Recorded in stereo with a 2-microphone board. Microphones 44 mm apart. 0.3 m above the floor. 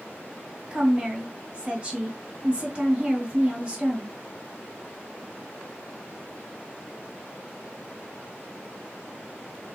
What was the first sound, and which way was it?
A woman speaking, 25° right (ahead or behind).